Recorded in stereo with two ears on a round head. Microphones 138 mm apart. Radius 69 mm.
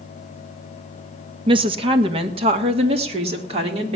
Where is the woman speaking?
35° right (ahead or behind), 1.0 m; by 4.0 s 40° right (ahead or behind), 2.5 m.